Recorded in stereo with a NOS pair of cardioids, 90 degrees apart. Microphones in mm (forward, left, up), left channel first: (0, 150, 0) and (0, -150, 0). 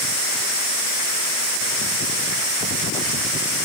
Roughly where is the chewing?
No chewing in this recording.